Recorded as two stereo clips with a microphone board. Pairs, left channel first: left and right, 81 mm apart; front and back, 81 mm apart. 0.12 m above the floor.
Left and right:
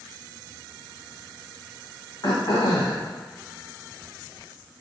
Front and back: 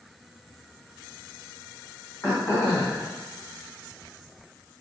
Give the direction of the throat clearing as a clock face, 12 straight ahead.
10 o'clock.